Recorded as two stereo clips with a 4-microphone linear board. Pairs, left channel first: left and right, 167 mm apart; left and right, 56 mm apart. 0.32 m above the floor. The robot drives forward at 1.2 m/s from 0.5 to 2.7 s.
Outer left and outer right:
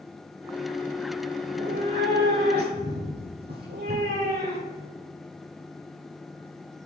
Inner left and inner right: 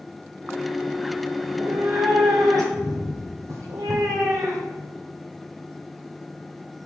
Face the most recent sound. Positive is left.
turn(degrees=-70)  # may be behind; listen again after turning